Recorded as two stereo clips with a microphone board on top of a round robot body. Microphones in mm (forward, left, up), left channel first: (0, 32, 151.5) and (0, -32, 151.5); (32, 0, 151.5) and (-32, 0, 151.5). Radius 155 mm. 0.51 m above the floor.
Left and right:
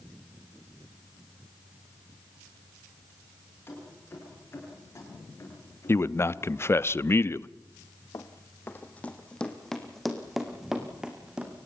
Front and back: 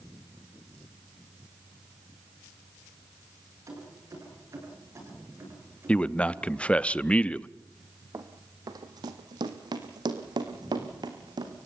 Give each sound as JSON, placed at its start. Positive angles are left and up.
{"t": 3.7, "sound": "keys jangling", "azimuth_deg": 145, "distance_m": 9.5}
{"t": 5.9, "sound": "a man speaking", "azimuth_deg": 65, "distance_m": 0.8}
{"t": 8.1, "sound": "running footsteps", "azimuth_deg": 135, "distance_m": 1.7}